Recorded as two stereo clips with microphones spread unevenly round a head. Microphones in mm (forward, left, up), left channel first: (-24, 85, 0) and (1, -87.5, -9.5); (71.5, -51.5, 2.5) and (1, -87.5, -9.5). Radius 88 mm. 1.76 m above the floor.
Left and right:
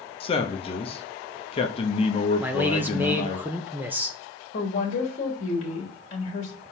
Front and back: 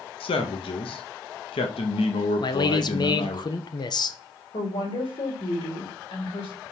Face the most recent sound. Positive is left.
turn(degrees=45)